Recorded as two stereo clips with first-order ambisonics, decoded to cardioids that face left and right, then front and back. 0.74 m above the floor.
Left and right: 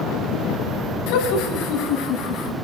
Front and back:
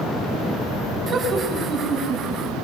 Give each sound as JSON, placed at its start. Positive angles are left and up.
{"t": 1.1, "sound": "laughter", "azimuth_deg": 110, "distance_m": 5.5}